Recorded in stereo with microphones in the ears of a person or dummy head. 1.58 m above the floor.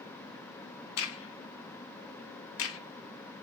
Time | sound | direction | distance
1.0 | a crack | 65° left (ahead or behind) | 0.5 m